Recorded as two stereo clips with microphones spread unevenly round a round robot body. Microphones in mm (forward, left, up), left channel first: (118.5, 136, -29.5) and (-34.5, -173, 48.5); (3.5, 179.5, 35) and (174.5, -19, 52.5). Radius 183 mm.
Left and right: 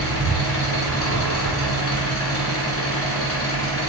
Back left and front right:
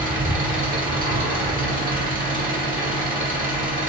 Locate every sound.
0.0 s an engine running: 10° left, 1.6 m